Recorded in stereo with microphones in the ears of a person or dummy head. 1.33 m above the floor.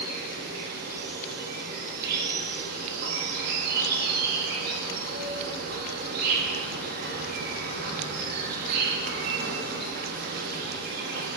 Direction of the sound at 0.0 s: 55° right (ahead or behind).